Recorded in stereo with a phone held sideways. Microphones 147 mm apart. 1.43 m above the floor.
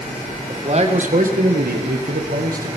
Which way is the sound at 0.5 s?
40° right (ahead or behind).